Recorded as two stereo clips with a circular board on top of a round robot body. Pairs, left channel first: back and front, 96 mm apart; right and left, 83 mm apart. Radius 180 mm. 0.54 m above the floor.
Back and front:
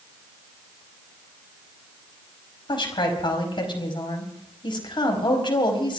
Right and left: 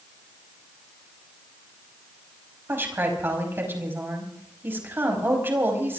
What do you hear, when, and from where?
2.7 s a woman speaking: 150° left, 5 m